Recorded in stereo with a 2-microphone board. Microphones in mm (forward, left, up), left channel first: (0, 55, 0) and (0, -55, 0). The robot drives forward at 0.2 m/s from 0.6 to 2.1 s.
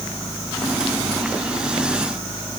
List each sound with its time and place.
Only background noise.